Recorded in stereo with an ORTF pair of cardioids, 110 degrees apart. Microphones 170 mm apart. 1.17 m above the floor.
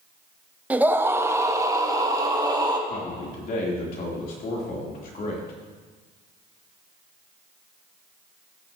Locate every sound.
0.7 s a scream: 10° right, 0.7 m; by 2.8 s 25° right, 1.8 m
2.9 s a man speaking: 60° left, 3.5 m